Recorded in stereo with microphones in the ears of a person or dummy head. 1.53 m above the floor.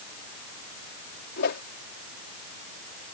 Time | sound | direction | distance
1.4 | a whoosh | 65° left (ahead or behind) | ?